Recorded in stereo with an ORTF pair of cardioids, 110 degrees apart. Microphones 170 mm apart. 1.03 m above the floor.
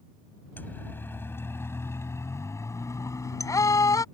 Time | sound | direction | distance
0.6 | a siren | 10° left | ?